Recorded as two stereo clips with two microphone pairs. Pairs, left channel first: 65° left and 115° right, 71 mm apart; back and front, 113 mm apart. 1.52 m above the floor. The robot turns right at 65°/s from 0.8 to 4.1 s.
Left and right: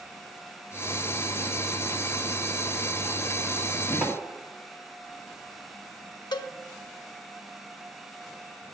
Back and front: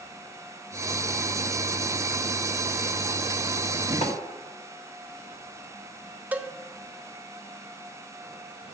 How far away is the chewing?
No chewing in this recording.